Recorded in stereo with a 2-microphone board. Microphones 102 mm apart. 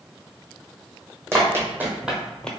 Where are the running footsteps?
25° right (ahead or behind), 1.0 m; by 2.5 s 10° left (ahead or behind), 0.5 m.